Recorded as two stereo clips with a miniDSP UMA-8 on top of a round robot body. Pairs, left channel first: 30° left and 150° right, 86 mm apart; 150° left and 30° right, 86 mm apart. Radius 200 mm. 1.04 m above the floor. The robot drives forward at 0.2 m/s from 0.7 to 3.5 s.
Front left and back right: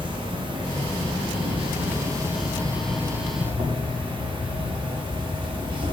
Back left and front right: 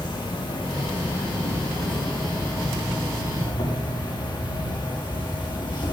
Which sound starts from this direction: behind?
An insect, at 0.0 s.